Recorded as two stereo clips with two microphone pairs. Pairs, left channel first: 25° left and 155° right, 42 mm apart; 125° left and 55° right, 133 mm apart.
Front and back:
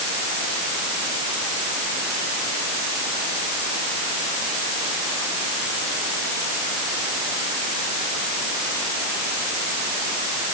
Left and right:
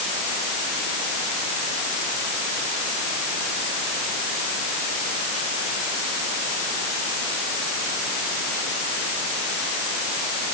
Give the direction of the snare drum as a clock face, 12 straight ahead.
I don't hear a snare drum.